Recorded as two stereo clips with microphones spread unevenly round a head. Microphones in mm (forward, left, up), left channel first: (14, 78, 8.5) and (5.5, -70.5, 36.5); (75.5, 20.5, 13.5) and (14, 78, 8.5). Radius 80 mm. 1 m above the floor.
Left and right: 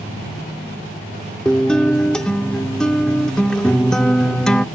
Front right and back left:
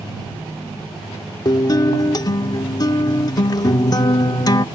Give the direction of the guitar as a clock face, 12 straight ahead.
12 o'clock.